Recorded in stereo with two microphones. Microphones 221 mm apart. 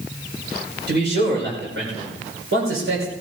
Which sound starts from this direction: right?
A man speaking, at 0.9 s.